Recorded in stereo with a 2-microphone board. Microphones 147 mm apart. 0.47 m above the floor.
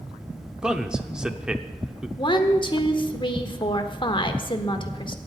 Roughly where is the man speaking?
Centre.